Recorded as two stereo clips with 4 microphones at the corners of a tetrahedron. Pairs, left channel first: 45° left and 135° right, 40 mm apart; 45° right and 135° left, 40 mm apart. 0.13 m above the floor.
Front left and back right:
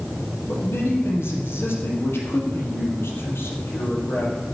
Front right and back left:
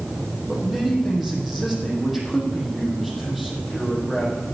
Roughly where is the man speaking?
Ahead left.